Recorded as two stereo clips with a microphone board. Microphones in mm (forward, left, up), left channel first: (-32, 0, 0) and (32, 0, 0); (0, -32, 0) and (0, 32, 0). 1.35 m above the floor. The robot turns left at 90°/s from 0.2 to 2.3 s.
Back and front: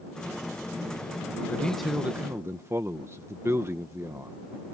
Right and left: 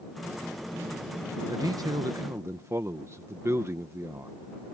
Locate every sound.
1.5 s a man speaking: 120° left; by 4.3 s 45° left